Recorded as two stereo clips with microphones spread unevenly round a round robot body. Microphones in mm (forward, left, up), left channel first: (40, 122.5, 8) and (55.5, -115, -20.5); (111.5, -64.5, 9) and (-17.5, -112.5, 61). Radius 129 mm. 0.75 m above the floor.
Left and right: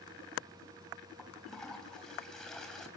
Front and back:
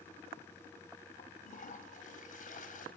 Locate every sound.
1.2 s a toilet flushing: 5° left, 4 m